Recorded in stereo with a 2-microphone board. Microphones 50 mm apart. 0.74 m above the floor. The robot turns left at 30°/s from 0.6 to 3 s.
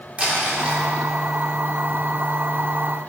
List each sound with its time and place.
0.2 s crumpling: 25° right (ahead or behind), 2.5 m; by 0.8 s 20° right (ahead or behind), 2.5 m